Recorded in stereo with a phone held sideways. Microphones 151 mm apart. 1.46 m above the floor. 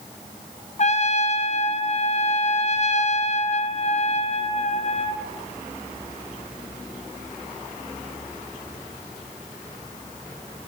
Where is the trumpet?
45° left (ahead or behind), 0.7 m.